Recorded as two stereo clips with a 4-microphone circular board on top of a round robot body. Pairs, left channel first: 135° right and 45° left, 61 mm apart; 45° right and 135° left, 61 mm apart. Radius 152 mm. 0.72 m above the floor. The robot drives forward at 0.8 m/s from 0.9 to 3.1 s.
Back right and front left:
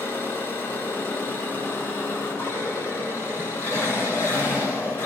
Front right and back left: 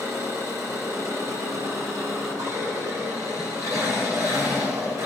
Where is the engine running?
165° left, 7 m; by 5.1 s 170° left, 9 m.